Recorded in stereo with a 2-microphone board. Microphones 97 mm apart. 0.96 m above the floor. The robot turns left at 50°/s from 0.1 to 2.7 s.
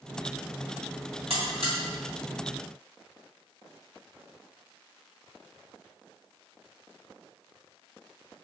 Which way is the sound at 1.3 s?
70° right (ahead or behind).